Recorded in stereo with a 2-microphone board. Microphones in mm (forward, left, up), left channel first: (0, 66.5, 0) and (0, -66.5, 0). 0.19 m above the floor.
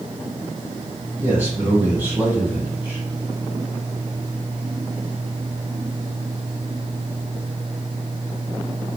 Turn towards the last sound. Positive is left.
turn(degrees=-15)  # may be behind; listen again after turning